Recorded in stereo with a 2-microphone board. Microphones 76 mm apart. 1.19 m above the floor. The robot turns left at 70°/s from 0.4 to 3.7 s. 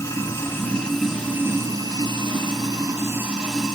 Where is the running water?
40° left, 5.5 m; by 3.8 s 170° left, 5.5 m.